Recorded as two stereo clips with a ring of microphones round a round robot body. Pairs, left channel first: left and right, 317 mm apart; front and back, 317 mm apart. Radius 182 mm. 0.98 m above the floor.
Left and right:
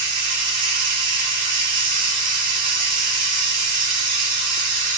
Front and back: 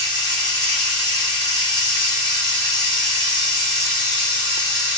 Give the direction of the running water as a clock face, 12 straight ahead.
2 o'clock.